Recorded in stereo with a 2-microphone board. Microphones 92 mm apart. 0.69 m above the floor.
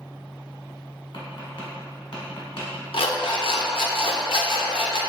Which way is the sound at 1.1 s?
65° left (ahead or behind).